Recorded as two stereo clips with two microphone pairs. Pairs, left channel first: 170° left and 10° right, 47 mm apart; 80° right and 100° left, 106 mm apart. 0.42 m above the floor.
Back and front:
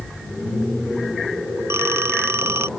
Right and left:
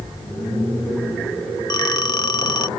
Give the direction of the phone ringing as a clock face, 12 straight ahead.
1 o'clock.